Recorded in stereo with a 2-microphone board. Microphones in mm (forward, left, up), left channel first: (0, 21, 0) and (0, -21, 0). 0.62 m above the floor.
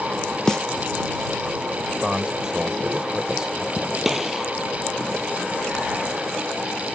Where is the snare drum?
15° left (ahead or behind).